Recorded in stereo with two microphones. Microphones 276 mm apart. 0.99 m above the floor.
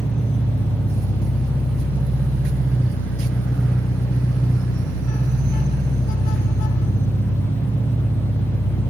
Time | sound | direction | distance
0.0 | an engine running | 25° left (ahead or behind) | 1.2 m